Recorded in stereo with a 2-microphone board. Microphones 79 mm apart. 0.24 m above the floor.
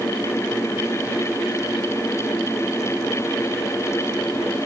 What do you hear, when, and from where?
Only background noise.